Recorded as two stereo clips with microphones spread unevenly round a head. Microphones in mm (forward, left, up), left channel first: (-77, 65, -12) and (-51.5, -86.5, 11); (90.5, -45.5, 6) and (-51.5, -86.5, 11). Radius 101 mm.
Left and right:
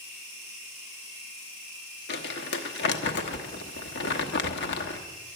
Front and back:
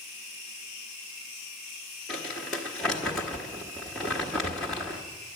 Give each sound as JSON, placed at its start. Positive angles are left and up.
{"t": 2.1, "sound": "crumpling", "azimuth_deg": 105, "distance_m": 1.1}